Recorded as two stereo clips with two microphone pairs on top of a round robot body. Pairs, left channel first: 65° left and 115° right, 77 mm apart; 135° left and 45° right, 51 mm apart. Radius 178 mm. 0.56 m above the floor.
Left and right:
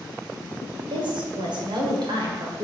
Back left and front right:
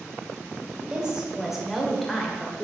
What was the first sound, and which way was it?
A woman speaking, 120° right.